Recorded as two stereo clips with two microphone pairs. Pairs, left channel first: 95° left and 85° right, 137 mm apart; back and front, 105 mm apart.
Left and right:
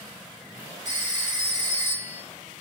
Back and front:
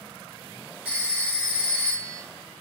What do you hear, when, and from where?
0.8 s a phone ringing: 75° left, 1.0 m